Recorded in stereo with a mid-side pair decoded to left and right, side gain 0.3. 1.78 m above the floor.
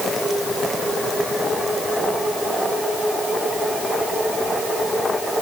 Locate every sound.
Only background noise.